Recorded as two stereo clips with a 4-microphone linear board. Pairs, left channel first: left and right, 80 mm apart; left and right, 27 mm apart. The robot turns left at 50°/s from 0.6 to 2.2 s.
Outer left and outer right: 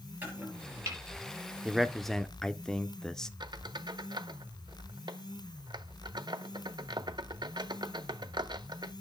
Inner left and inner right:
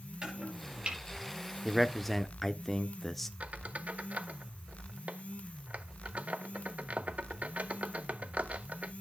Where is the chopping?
25° right (ahead or behind), 5.5 m; by 1.0 s 40° right (ahead or behind), 5.5 m.